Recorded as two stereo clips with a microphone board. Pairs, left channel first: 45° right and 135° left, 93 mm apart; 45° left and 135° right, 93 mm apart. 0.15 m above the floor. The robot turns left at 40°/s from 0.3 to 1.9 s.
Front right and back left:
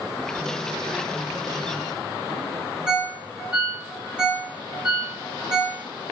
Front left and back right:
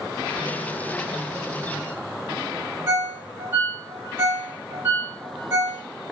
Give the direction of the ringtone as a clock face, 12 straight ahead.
5 o'clock.